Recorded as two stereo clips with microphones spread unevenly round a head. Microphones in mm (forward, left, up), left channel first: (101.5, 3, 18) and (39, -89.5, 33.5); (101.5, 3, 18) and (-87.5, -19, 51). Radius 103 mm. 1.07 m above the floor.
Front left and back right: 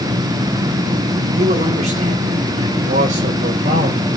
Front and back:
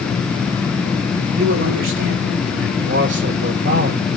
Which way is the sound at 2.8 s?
140° right.